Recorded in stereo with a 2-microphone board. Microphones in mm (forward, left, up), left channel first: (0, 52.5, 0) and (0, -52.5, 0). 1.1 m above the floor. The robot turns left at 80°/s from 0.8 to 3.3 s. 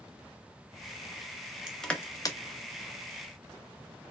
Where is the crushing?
10° right (ahead or behind), 0.6 m; by 2.4 s 45° left (ahead or behind), 0.6 m.